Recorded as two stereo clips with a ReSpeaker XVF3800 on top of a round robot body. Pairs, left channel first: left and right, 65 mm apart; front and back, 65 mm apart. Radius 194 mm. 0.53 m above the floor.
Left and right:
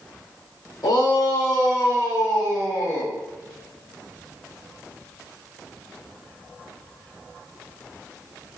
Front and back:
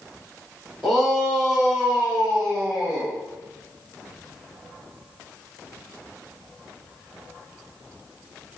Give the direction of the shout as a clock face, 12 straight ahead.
9 o'clock.